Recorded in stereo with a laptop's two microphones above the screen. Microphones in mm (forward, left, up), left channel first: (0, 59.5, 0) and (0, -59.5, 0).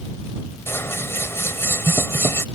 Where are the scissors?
20° left (ahead or behind).